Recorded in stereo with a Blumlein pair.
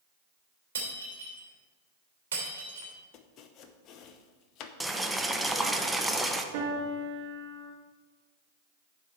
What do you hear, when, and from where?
0.8 s breaking glass: 65° right, 3 m
3.1 s chopping: 35° left, 0.8 m
4.8 s boiling: 5° right, 0.7 m
6.5 s a piano: 45° right, 1.7 m